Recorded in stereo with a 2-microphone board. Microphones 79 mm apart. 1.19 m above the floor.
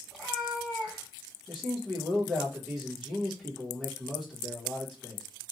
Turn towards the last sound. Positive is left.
turn(degrees=0)  # may be behind; listen again after turning